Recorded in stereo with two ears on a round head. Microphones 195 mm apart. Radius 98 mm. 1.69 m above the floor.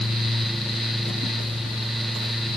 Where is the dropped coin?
No dropped coin in this recording.